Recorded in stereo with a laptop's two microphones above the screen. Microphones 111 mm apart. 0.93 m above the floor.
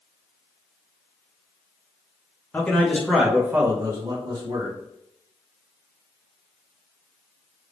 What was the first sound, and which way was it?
A man speaking, 15° left (ahead or behind).